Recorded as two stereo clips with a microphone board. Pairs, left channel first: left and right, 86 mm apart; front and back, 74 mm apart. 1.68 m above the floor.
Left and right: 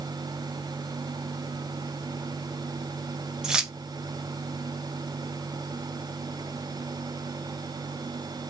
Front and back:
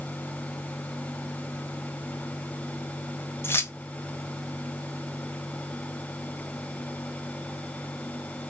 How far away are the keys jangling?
About 0.6 m.